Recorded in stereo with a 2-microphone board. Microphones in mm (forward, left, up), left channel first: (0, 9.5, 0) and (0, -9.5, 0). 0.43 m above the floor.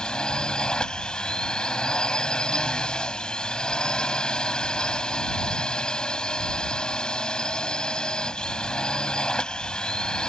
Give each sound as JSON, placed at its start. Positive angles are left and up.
{"t": 0.0, "sound": "a drone", "side_deg": 45}